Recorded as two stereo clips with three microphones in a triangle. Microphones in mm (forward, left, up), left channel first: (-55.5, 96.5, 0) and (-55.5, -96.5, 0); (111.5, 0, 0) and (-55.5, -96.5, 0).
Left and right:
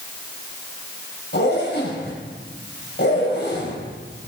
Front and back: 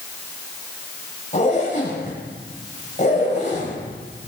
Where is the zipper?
75° left, 5 m.